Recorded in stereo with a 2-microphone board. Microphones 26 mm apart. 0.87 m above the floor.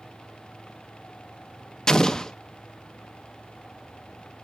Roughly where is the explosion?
Left.